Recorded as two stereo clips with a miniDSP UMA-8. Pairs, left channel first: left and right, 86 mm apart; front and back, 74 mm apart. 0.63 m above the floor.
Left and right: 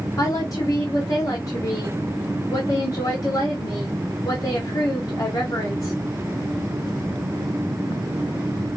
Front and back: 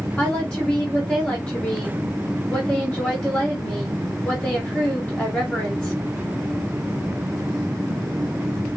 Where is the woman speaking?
70° left, 1.5 m.